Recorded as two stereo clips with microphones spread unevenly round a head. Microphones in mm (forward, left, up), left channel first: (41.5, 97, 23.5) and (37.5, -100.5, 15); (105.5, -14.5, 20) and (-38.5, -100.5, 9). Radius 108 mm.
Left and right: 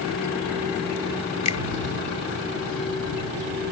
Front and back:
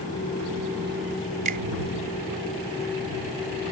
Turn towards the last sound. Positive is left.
turn(degrees=155)